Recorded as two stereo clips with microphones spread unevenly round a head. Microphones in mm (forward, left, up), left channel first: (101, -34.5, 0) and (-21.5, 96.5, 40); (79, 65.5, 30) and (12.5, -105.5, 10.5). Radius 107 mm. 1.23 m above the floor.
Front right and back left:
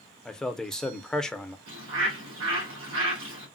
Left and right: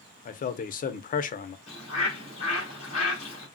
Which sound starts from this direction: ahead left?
A man speaking, at 0.2 s.